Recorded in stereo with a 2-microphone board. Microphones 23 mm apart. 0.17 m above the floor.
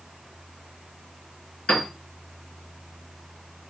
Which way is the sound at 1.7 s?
55° left (ahead or behind).